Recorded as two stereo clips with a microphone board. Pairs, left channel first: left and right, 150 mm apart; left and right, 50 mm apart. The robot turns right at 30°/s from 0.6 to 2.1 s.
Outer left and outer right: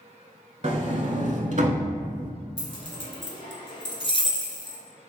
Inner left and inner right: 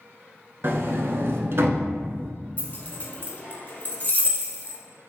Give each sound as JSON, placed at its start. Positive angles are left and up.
{"t": 0.6, "sound": "a sliding door", "side_deg": -45, "distance_m": 0.6}
{"t": 2.6, "sound": "keys jangling", "side_deg": 35, "distance_m": 0.9}